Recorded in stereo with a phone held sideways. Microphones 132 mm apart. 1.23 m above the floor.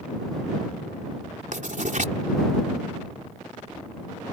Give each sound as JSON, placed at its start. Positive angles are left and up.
{"t": 1.5, "sound": "writing", "side_deg": -70}